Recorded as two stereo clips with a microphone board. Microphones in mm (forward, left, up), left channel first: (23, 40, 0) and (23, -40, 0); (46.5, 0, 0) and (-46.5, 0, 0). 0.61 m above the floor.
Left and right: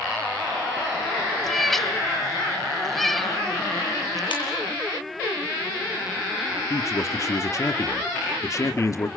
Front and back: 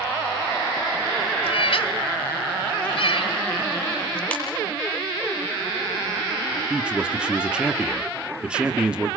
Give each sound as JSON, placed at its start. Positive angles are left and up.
{"t": 1.4, "sound": "a cat meowing", "azimuth_deg": 5, "distance_m": 0.9}
{"t": 4.3, "sound": "a ringtone", "azimuth_deg": 75, "distance_m": 9.0}
{"t": 6.7, "sound": "a man speaking", "azimuth_deg": 105, "distance_m": 1.5}